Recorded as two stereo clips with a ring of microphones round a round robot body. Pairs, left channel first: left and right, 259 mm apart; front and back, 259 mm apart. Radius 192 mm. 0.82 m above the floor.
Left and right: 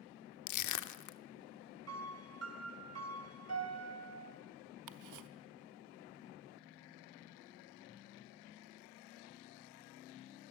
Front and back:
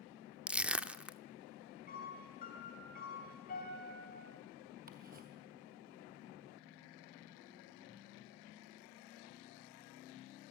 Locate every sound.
0.5 s crushing: 95° left, 0.8 m
1.9 s a piano: 70° right, 3 m
4.9 s ticking: 110° right, 0.8 m